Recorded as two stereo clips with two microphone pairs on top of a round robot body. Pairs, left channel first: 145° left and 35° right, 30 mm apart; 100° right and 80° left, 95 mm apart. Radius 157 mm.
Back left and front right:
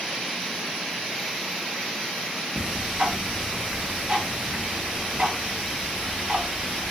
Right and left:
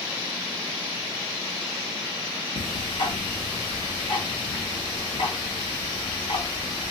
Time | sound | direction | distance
2.6 | ticking | 85° right | 1.4 m